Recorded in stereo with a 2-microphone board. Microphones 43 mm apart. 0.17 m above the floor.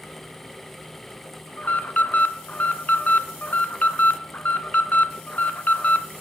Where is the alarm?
35° left (ahead or behind), 1.5 m.